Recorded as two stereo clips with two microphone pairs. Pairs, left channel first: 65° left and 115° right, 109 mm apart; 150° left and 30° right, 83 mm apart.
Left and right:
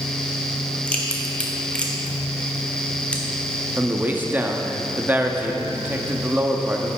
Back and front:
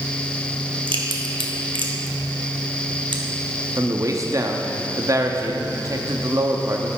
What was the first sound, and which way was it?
A crack, 15° right.